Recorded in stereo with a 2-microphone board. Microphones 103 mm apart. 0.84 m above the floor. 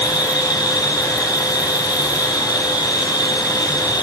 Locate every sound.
0.0 s an insect: 40° left (ahead or behind), 0.9 m